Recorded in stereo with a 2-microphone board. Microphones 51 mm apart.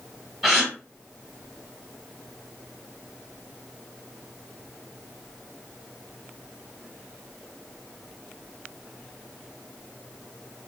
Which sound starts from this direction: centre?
A gasp, at 0.4 s.